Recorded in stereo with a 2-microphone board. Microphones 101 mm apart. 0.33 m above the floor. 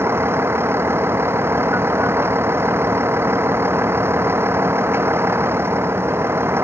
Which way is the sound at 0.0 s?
25° right (ahead or behind).